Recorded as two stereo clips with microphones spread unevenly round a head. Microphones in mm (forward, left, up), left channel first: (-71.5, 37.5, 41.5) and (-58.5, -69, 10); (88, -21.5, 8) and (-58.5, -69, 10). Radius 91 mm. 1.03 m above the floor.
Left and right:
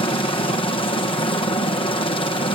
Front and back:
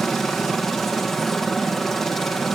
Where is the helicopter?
105° left.